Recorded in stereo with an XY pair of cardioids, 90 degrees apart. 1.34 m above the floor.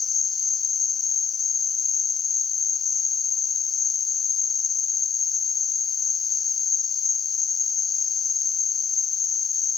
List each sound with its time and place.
0.0 s an insect: 45° left, 0.7 m